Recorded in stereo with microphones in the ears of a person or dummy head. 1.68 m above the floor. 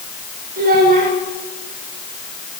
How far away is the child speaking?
About 3 m.